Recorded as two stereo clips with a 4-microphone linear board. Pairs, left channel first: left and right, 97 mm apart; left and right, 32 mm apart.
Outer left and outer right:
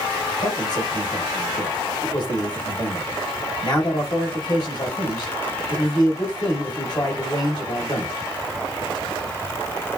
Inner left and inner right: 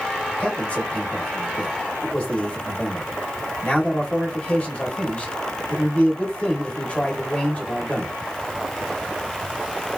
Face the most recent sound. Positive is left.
turn(degrees=50)  # may be behind; listen again after turning